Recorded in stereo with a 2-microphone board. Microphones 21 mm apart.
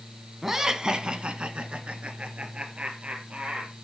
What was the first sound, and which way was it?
Laughter, 15° right (ahead or behind).